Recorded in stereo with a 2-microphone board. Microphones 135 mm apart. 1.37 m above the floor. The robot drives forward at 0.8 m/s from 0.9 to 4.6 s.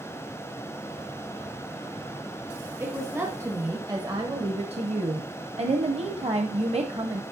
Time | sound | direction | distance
2.8 | a woman speaking | 20° right (ahead or behind) | 2 m